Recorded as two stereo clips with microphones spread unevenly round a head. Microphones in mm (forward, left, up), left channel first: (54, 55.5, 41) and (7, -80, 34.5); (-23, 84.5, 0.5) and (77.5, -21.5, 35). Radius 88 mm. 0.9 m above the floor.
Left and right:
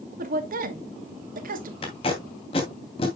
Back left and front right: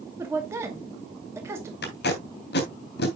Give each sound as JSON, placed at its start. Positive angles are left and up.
{"t": 0.2, "sound": "a woman speaking", "azimuth_deg": -125, "distance_m": 2.0}
{"t": 1.8, "sound": "tape being pulled", "azimuth_deg": 130, "distance_m": 2.5}